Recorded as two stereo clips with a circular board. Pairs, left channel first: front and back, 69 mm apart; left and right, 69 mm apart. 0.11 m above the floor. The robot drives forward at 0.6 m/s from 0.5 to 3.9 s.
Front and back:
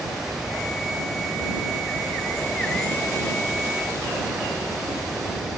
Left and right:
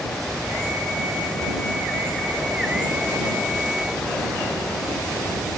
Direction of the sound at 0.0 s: 160° left.